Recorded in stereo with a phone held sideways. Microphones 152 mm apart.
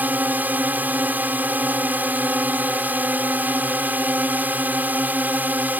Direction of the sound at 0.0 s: 10° right (ahead or behind).